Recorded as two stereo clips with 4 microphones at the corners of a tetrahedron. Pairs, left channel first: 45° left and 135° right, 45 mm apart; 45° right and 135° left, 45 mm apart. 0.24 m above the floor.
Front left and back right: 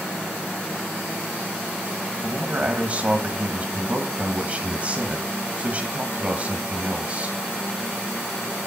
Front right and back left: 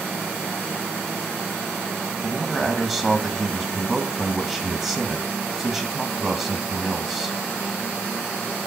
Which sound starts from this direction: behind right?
A man speaking, at 2.2 s.